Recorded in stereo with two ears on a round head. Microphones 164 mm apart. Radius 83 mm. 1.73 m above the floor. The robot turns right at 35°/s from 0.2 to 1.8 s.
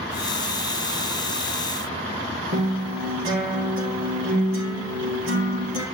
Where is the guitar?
80° right, 4 m.